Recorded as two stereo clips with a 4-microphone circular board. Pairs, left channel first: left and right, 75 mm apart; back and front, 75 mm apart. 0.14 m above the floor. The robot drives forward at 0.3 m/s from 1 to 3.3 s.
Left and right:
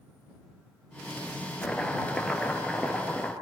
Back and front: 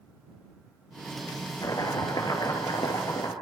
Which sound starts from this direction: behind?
Chopping, at 1.6 s.